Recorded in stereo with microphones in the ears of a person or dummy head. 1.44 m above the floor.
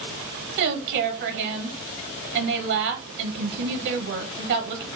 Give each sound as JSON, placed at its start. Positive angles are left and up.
{"t": 0.6, "sound": "a woman speaking", "side_deg": -65, "distance_m": 0.9}